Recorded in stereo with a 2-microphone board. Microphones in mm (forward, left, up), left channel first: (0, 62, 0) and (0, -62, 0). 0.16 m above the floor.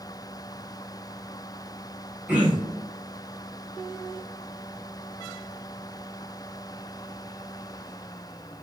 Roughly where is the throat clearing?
Centre.